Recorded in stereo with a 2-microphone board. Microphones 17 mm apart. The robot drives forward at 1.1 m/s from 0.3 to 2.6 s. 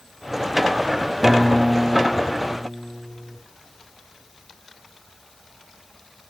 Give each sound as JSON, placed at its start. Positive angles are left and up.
{"t": 1.2, "sound": "a guitar", "side_deg": -10, "distance_m": 3.0}